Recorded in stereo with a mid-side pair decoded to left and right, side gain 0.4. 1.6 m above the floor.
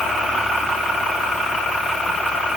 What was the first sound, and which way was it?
Only background noise.